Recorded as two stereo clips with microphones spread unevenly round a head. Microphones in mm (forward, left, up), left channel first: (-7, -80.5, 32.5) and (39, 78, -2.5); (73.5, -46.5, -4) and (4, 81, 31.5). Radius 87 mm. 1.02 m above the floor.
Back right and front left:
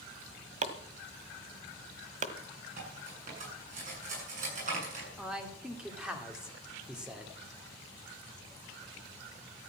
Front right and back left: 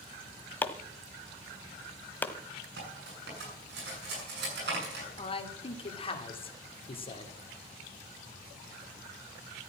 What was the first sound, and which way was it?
Chopping, 25° left.